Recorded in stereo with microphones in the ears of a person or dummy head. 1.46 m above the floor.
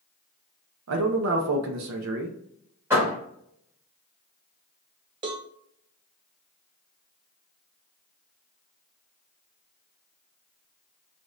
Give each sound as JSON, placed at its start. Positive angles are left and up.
{"t": 0.9, "sound": "a man speaking", "side_deg": -80, "distance_m": 0.8}
{"t": 2.9, "sound": "a door slam", "side_deg": -10, "distance_m": 1.7}
{"t": 5.2, "sound": "a cowbell", "side_deg": -30, "distance_m": 0.6}